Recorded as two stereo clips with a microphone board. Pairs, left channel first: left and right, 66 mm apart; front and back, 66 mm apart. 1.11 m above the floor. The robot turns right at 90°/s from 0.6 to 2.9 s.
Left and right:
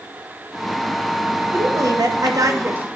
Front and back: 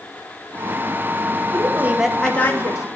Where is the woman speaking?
145° right, 1.2 m; by 2.9 s 25° right, 1.2 m.